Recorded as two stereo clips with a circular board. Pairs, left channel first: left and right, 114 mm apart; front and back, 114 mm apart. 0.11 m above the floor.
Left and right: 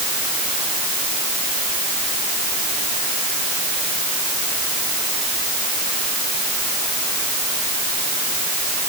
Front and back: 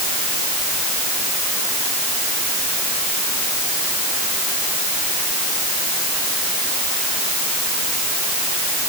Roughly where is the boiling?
I don't hear boiling.